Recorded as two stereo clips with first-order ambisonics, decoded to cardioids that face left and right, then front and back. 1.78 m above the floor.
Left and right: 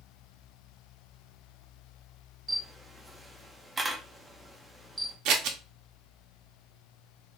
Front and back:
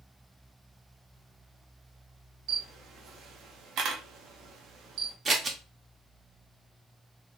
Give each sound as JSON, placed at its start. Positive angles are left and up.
{"t": 2.5, "sound": "a camera shutter", "azimuth_deg": -165, "distance_m": 0.5}
{"t": 5.2, "sound": "scissors", "azimuth_deg": -110, "distance_m": 0.5}